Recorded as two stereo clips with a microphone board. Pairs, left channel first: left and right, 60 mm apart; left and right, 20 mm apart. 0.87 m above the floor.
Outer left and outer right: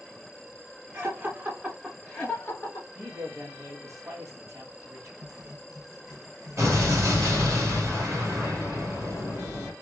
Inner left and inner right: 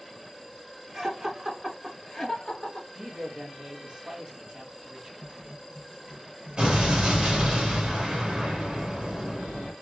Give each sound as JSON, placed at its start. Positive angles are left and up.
{"t": 0.9, "sound": "laughter", "side_deg": -35, "distance_m": 1.4}
{"t": 3.0, "sound": "a man speaking", "side_deg": -55, "distance_m": 1.5}
{"t": 5.2, "sound": "writing", "side_deg": -80, "distance_m": 1.4}
{"t": 6.6, "sound": "an explosion", "side_deg": -50, "distance_m": 1.8}